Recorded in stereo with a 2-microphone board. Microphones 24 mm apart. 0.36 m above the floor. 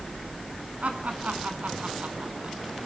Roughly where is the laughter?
Right.